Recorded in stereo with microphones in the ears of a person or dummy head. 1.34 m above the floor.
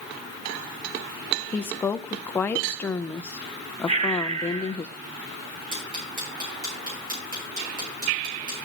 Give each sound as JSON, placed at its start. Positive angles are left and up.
{"t": 1.5, "sound": "a woman speaking", "side_deg": 15, "distance_m": 0.6}
{"t": 3.9, "sound": "breathing", "side_deg": -45, "distance_m": 3.0}
{"t": 5.7, "sound": "ticking", "side_deg": -45, "distance_m": 5.0}